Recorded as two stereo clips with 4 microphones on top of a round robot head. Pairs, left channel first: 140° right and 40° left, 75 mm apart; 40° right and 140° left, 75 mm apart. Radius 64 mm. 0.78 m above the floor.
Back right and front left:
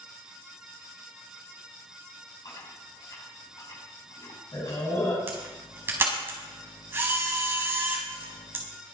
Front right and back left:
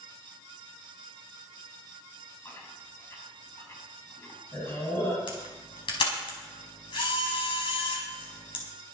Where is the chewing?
95° right, 5.5 m.